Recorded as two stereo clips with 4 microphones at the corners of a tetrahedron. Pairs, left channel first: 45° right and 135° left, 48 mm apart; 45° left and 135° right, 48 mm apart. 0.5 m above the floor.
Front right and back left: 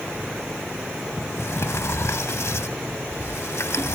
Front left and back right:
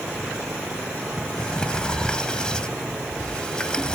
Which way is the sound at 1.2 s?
25° right.